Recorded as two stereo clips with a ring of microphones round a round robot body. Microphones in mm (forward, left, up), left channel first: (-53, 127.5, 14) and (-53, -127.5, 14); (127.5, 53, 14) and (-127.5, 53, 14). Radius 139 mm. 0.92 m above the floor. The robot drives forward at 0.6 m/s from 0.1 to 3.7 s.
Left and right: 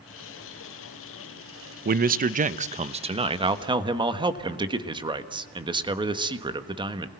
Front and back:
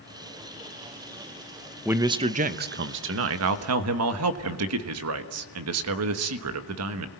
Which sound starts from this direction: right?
A man speaking, at 1.9 s.